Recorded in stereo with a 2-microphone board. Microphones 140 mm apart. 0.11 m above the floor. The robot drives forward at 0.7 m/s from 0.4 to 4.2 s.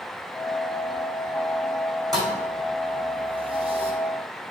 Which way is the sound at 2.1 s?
25° right (ahead or behind).